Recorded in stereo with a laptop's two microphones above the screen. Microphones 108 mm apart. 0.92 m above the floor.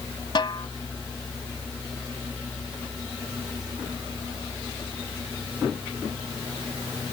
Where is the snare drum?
50° left (ahead or behind).